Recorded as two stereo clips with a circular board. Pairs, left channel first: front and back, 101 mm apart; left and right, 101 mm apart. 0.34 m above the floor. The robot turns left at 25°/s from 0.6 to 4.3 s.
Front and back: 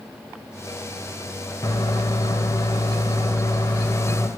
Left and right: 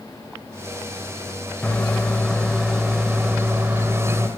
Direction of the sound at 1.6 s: 25° left.